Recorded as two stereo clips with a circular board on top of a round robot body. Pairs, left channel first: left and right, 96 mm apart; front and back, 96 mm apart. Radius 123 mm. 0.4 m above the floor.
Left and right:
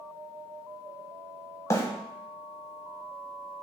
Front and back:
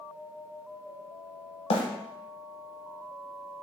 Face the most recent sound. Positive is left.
turn(degrees=30)